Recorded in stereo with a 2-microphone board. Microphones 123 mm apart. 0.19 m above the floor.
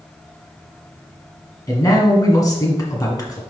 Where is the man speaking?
30° left (ahead or behind), 1.8 m.